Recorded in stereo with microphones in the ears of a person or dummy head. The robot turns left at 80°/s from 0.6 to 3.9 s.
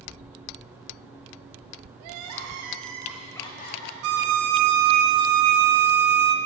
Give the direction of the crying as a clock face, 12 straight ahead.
3 o'clock.